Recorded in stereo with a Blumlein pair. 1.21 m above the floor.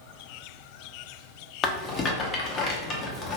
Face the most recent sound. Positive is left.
turn(degrees=25)